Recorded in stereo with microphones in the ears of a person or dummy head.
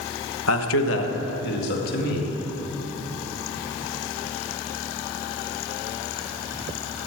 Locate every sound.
0.5 s a man speaking: 80° left, 1.1 m; by 2.4 s 50° left (ahead or behind), 2.5 m